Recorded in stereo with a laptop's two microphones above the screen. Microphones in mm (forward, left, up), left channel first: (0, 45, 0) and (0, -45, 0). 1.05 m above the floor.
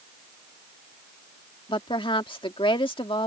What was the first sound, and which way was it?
A woman speaking, 75° left (ahead or behind).